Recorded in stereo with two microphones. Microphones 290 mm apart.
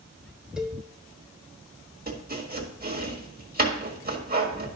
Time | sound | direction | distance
0.6 | a cowbell | centre (ahead or behind) | 1.0 m
2.1 | chopping | 30° right (ahead or behind) | 1.6 m